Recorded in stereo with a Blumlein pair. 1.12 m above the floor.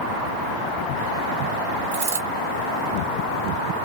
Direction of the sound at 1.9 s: 50° right.